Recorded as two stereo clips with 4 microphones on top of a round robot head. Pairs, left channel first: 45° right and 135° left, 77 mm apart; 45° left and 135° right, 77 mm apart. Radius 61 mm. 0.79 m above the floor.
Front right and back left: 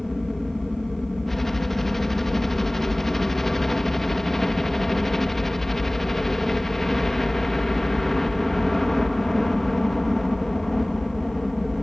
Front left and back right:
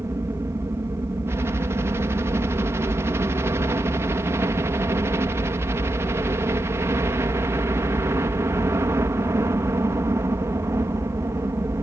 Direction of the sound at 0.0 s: 130° right.